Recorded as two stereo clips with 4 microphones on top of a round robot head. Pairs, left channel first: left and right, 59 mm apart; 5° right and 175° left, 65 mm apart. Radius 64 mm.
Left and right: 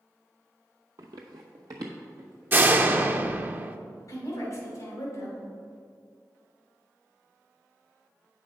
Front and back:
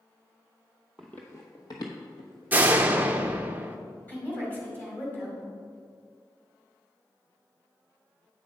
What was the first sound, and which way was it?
Running footsteps, 90° right.